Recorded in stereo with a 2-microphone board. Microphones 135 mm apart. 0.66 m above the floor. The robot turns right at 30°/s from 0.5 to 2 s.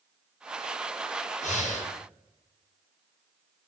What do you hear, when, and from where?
1.4 s breathing: 60° left (ahead or behind), 0.6 m